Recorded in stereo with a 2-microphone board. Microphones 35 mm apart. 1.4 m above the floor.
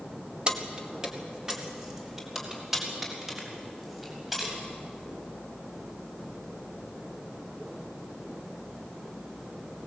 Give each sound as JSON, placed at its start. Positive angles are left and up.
{"t": 0.5, "sound": "keys jangling", "side_deg": -30, "distance_m": 1.7}